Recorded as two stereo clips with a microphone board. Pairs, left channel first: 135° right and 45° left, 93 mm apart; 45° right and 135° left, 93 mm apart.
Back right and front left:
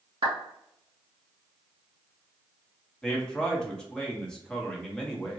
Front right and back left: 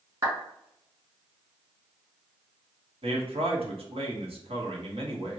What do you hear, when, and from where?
0.2 s a clap: 85° left, 2.0 m
3.0 s a man speaking: 140° left, 1.0 m